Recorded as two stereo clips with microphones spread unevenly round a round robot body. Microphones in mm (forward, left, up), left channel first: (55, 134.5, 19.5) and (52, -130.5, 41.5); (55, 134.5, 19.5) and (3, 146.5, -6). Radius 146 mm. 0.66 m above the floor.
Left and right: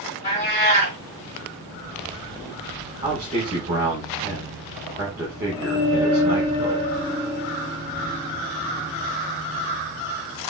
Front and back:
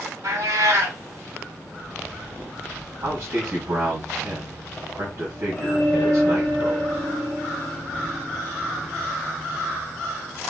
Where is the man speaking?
170° right, 2.5 m.